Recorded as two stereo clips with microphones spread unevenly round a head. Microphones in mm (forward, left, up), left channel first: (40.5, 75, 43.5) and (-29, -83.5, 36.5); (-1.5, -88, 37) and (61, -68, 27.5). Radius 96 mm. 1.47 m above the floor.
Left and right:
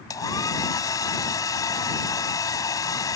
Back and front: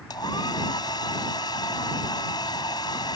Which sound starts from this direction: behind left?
A hair dryer, at 0.1 s.